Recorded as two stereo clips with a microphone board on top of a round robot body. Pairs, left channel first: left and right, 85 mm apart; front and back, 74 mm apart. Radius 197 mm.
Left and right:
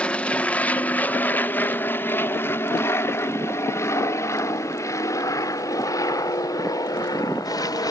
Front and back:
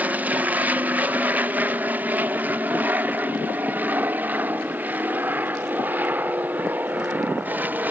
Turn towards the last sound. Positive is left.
turn(degrees=120)